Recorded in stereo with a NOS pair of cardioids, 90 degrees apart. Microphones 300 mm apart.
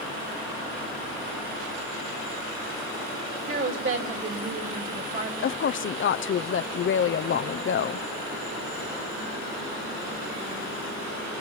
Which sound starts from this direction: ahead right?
A woman speaking, at 3.5 s.